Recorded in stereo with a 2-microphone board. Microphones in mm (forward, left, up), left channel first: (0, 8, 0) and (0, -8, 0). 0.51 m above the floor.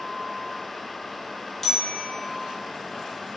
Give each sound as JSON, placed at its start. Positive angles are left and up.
{"t": 1.6, "sound": "a bicycle bell", "side_deg": 15, "distance_m": 5.0}